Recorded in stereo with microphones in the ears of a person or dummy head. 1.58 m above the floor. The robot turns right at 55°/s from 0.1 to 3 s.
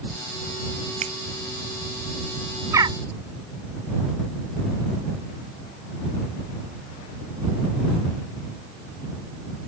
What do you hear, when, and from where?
1.0 s a finger snap: 40° right (ahead or behind); by 1.1 s 30° right (ahead or behind)
2.7 s a bird: 15° right (ahead or behind); by 3.0 s 30° right (ahead or behind)